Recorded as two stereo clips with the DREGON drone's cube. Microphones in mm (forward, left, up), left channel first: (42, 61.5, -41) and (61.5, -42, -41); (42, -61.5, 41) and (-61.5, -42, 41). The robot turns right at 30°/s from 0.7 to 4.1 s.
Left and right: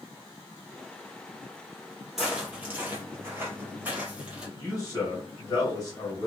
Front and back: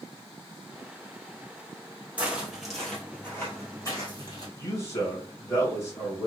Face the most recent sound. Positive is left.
turn(degrees=50)